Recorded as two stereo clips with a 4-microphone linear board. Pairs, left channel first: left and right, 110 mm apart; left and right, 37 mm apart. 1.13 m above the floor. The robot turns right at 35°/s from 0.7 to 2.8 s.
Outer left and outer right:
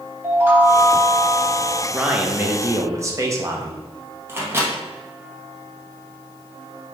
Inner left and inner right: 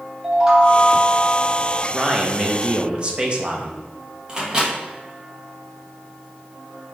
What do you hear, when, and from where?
0.2 s a chime: 160° right, 0.8 m; by 1.8 s 125° right, 0.8 m
1.9 s a man speaking: straight behind, 0.7 m; by 3.8 s 145° right, 0.7 m
4.3 s a microwave: 20° right (ahead or behind), 0.9 m